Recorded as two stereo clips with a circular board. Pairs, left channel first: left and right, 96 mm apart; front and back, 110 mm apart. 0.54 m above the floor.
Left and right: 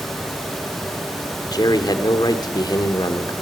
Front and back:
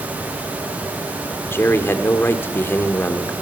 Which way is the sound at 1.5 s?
65° left.